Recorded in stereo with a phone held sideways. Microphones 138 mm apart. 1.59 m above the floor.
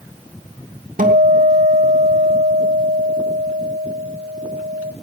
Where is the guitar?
80° right, 2.5 m.